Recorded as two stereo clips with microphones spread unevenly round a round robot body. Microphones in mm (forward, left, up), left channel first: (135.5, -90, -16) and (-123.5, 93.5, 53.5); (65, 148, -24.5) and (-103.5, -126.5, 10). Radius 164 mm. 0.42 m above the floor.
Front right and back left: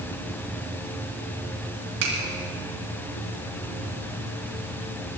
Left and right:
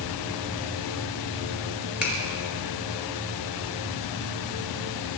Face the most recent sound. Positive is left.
turn(degrees=150)